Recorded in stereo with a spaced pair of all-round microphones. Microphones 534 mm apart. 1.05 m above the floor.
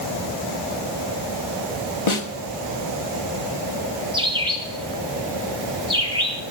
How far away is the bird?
About 2.5 m.